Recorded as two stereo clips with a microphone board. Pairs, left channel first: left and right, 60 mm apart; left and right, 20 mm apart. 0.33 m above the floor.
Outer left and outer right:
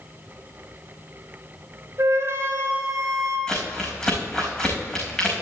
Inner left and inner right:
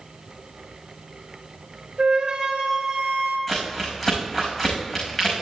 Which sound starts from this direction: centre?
Crumpling, at 3.5 s.